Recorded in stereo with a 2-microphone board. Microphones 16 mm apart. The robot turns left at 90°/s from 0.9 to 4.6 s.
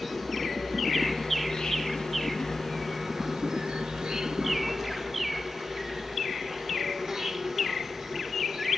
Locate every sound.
0.0 s an insect: 175° right, 2 m; by 8.8 s 150° right, 2 m